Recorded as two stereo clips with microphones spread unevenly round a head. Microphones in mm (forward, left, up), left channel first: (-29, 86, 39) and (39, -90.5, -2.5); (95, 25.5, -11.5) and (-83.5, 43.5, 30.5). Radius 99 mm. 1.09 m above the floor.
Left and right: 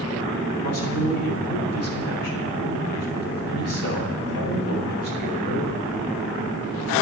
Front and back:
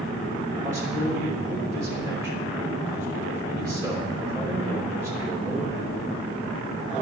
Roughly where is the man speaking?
Left.